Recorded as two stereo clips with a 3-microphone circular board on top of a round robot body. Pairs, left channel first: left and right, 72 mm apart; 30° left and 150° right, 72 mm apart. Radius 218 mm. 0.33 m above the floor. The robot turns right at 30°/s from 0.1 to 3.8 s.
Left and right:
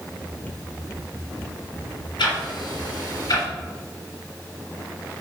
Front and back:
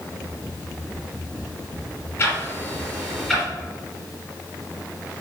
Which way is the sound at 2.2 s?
85° left.